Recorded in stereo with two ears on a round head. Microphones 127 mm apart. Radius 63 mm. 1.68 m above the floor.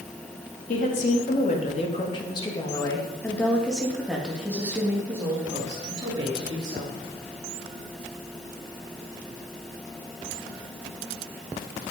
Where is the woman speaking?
60° left (ahead or behind), 4 m; by 7.0 s 35° right (ahead or behind), 5 m.